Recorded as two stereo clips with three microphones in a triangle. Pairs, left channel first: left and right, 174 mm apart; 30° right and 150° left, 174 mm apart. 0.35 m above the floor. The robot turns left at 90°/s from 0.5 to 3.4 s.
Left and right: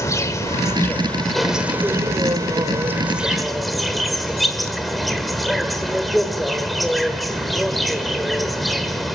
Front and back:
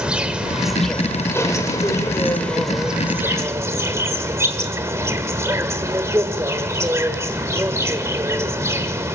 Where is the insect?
80° left, 1.5 m; by 9.2 s straight behind, 1.5 m.